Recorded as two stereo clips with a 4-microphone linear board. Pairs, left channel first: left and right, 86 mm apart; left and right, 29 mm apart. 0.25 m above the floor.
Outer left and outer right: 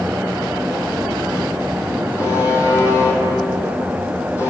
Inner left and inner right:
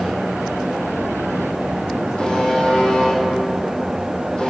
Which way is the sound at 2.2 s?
35° left (ahead or behind).